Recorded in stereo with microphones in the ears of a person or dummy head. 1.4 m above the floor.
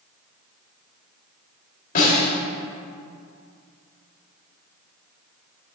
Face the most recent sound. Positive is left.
turn(degrees=45)  # may be behind; listen again after turning